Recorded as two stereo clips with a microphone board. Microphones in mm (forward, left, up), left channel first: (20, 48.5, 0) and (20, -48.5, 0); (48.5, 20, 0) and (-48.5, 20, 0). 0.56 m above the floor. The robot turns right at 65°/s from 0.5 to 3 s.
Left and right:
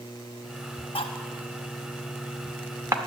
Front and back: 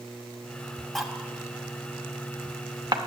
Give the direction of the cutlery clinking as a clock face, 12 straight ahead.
9 o'clock.